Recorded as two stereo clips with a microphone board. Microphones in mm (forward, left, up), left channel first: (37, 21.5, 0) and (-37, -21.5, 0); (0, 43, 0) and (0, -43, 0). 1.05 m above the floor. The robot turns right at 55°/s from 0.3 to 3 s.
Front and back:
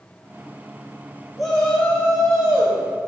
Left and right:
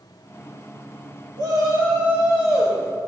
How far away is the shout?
About 2.5 m.